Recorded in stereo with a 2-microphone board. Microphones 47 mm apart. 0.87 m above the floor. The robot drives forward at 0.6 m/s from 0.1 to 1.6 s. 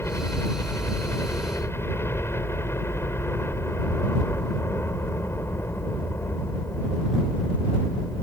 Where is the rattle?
I don't hear a rattle.